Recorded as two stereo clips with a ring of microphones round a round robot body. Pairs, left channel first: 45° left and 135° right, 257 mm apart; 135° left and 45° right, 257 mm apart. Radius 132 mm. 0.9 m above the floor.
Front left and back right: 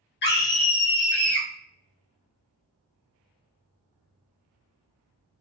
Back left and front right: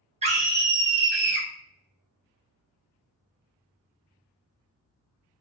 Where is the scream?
15° left, 0.9 m; by 1.5 s 45° right, 1.1 m.